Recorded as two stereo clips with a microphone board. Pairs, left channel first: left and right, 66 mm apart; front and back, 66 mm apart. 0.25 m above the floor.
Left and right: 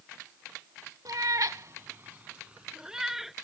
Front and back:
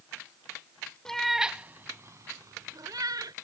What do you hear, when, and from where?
1.1 s a cat meowing: 80° right; by 3.3 s 175° right